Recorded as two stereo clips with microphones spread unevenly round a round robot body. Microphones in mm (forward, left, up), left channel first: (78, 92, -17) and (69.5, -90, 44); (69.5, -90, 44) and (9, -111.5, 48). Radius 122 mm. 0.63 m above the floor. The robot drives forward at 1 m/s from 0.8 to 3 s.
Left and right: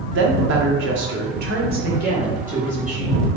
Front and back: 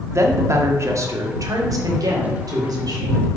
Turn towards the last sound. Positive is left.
turn(degrees=-160)